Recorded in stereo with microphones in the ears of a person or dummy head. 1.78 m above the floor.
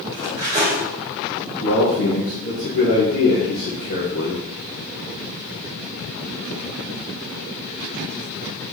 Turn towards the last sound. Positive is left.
turn(degrees=45)  # may be behind; listen again after turning